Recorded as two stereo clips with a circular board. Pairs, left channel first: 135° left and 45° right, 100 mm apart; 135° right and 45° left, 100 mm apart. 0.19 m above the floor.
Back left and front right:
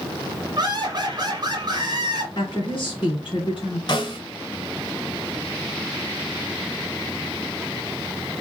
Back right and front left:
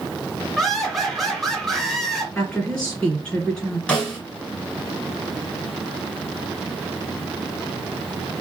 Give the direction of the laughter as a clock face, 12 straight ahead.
2 o'clock.